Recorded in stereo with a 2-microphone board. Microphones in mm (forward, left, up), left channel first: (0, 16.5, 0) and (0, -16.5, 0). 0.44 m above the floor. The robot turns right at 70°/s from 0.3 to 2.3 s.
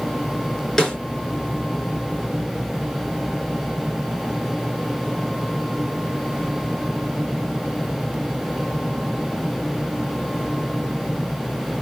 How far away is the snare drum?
About 3.5 m.